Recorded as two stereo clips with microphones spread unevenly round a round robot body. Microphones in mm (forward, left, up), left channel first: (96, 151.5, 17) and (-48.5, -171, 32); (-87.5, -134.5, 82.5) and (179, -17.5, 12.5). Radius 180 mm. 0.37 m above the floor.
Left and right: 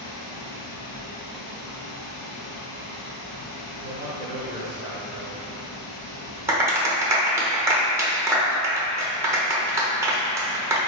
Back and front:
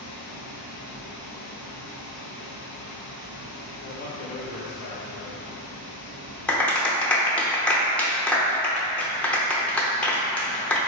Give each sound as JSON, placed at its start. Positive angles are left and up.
{"t": 0.0, "sound": "running water", "azimuth_deg": 45, "distance_m": 1.9}
{"t": 3.8, "sound": "a man speaking", "azimuth_deg": 180, "distance_m": 0.9}
{"t": 6.5, "sound": "a clap", "azimuth_deg": -40, "distance_m": 0.8}